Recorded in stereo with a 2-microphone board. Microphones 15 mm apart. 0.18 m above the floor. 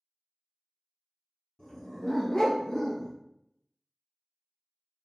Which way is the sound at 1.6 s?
50° left (ahead or behind).